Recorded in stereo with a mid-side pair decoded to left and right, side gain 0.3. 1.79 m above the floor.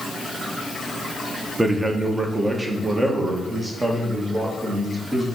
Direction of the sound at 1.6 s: 25° right.